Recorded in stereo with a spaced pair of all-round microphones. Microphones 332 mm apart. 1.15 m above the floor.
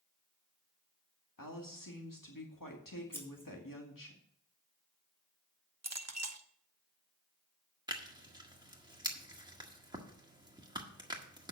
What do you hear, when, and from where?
1.4 s a woman speaking: 85° left, 2 m
3.1 s scissors: 5° left (ahead or behind), 2.5 m
5.8 s a clink: 55° right (ahead or behind), 0.9 m
7.9 s tearing paper: 15° right (ahead or behind), 1.6 m